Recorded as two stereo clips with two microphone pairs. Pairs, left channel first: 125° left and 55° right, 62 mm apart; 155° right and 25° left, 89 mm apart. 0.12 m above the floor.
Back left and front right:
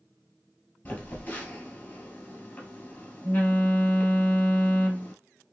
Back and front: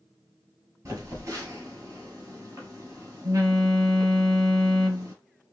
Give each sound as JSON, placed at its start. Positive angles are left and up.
{"t": 0.8, "sound": "a phone buzzing", "azimuth_deg": 65, "distance_m": 1.4}